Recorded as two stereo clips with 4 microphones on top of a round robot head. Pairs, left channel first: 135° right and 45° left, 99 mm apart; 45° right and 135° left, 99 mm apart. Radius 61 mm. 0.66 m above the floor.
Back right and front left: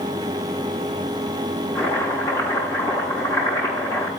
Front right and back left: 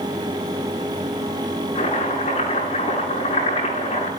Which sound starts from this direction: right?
Chopping, at 1.8 s.